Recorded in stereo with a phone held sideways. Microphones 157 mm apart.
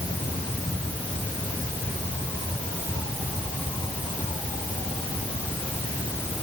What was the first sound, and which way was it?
Only background noise.